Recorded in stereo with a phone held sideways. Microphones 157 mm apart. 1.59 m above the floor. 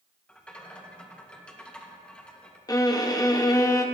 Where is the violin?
25° left (ahead or behind), 0.8 m.